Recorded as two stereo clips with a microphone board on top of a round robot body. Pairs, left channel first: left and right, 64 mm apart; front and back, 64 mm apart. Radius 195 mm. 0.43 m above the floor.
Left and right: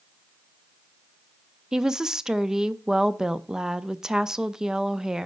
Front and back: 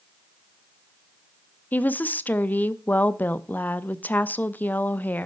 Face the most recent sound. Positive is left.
turn(degrees=-20)